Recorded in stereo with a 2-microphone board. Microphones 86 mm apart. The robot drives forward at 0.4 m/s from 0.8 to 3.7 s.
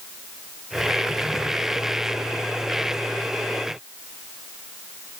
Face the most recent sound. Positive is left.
No sound to turn to.